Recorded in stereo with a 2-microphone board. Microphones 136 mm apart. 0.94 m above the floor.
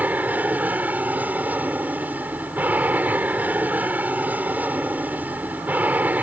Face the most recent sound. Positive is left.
turn(degrees=-10)  # may be behind; listen again after turning